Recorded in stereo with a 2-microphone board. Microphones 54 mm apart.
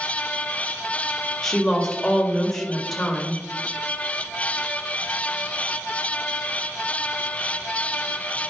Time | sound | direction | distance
1.4 | a woman speaking | 10° left (ahead or behind) | 1.7 m